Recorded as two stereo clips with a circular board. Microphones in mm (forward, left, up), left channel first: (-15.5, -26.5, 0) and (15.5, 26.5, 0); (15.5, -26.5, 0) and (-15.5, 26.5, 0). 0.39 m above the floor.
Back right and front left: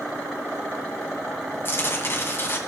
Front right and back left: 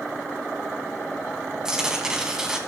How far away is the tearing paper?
About 2 m.